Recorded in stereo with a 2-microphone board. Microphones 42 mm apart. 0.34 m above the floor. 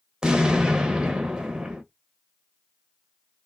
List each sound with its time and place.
0.2 s an explosion: 15° right (ahead or behind), 0.8 m